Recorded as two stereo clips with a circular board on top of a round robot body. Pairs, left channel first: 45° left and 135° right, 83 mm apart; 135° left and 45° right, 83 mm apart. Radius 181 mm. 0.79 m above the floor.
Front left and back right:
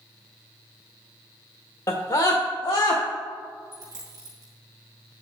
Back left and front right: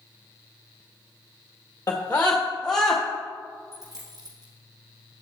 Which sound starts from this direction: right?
A dropped coin, at 3.7 s.